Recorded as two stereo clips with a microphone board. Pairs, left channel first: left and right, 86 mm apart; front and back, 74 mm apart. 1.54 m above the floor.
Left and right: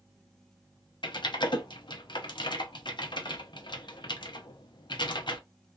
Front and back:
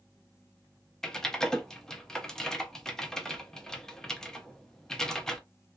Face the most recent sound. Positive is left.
turn(degrees=80)